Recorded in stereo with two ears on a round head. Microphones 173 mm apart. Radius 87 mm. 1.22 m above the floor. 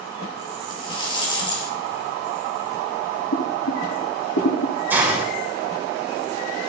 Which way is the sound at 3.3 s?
75° left (ahead or behind).